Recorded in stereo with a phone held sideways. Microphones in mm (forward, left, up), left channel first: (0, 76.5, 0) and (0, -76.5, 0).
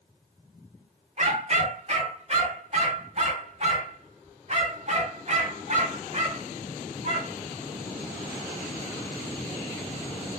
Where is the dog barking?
50° right (ahead or behind), 1.5 m.